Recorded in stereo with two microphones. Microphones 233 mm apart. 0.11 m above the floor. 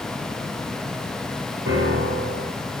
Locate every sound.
1.7 s a piano: 55° right (ahead or behind), 1.0 m